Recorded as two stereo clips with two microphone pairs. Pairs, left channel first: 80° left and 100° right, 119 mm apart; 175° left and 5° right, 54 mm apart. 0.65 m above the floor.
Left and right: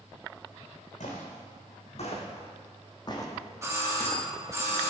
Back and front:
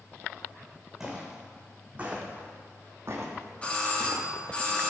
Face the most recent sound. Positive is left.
turn(degrees=-135)